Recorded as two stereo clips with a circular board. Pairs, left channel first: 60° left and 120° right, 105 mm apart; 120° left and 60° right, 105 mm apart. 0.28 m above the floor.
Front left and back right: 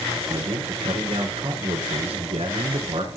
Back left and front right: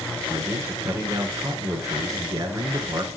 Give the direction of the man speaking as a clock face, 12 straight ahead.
4 o'clock.